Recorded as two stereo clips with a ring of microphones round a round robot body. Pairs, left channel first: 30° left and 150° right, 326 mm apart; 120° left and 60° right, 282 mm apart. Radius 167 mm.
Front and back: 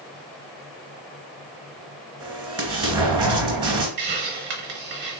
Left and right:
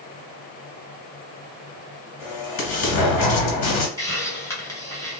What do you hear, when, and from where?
2.2 s an explosion: 135° left, 1.5 m
4.0 s a hiss: 165° right, 1.3 m